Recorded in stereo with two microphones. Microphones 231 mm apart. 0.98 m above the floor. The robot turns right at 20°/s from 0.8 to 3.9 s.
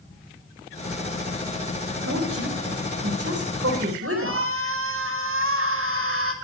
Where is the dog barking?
No dog barking in this recording.